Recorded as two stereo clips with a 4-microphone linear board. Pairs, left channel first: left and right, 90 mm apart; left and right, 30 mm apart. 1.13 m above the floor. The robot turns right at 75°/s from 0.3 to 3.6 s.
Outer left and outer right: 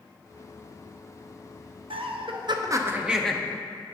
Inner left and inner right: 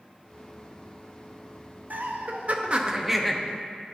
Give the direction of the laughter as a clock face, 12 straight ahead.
3 o'clock.